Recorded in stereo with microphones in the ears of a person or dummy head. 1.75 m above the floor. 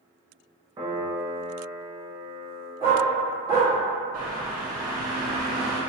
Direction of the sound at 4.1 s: 15° right (ahead or behind).